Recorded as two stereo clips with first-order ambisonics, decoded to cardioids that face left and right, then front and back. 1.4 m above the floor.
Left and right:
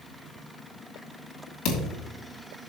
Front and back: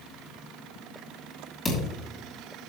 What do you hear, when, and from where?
1.6 s a thud: 70° left, 3.5 m